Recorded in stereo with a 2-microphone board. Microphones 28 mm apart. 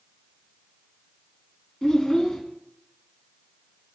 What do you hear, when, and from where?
1.8 s a child speaking: 25° left (ahead or behind), 1.1 m